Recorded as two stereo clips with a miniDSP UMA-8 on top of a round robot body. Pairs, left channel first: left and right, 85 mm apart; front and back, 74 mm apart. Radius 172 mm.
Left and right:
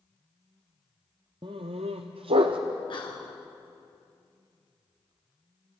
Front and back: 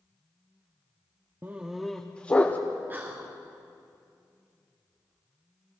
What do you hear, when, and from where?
1.4 s a dog barking: 125° right, 0.5 m; by 2.6 s 70° right, 1.0 m
2.9 s whispering: 115° left, 2.5 m